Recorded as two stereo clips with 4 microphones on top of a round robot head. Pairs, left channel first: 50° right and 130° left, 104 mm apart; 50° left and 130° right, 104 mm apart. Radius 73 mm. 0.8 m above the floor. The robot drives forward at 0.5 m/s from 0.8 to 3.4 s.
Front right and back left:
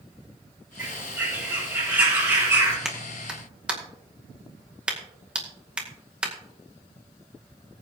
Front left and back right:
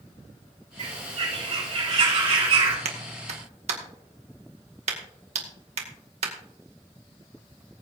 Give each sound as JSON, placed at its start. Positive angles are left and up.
{"t": 0.8, "sound": "a bird", "azimuth_deg": -155, "distance_m": 5.0}
{"t": 2.9, "sound": "a clap", "azimuth_deg": -145, "distance_m": 1.9}